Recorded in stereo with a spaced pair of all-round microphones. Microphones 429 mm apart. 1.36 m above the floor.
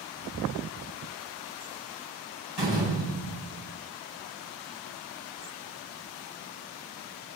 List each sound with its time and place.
2.6 s a door slam: 75° right (ahead or behind), 8 m